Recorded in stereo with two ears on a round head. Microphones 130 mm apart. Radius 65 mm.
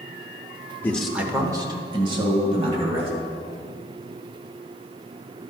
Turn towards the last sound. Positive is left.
turn(degrees=-40)  # may be behind; listen again after turning